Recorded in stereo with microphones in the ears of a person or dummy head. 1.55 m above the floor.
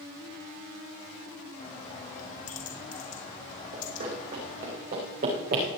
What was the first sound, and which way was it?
A bird, 40° left (ahead or behind).